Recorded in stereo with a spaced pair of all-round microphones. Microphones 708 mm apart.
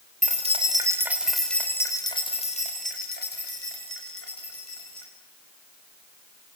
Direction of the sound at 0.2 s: 10° right (ahead or behind).